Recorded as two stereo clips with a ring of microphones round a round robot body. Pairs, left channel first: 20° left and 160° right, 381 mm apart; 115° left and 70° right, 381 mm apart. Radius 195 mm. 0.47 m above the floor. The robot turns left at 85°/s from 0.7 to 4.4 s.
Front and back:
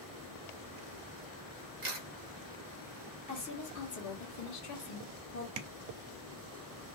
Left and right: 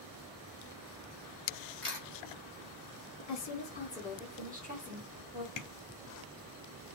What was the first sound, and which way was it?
A camera shutter, 170° left.